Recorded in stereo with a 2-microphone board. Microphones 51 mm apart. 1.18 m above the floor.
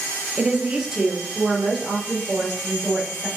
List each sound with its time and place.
0.4 s a woman speaking: 20° right (ahead or behind), 0.5 m; by 3.3 s 10° right (ahead or behind), 2.5 m